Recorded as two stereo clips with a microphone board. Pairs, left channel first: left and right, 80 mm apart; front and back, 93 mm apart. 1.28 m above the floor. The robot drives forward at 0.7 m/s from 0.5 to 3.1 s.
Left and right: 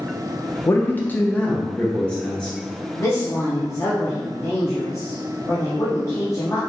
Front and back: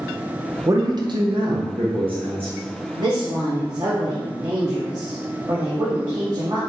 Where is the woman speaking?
140° left, 0.7 m; by 6.6 s 145° left, 0.8 m.